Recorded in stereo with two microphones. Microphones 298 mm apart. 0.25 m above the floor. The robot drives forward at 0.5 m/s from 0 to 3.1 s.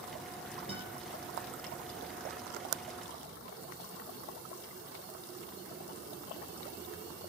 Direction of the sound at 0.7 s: 20° right (ahead or behind).